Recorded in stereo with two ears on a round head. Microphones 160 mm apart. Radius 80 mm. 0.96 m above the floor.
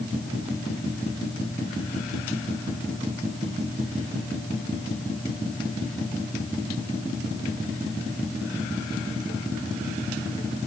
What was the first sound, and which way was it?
Only background noise.